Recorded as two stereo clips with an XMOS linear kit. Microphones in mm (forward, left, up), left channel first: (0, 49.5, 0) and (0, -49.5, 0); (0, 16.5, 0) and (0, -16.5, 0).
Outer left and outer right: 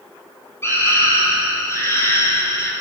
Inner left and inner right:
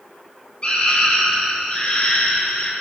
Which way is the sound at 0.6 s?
25° left (ahead or behind).